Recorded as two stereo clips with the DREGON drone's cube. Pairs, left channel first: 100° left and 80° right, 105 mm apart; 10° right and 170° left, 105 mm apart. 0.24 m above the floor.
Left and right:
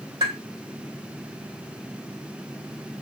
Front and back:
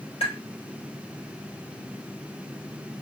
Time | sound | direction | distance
0.2 | tapping | 35° right | 3.5 m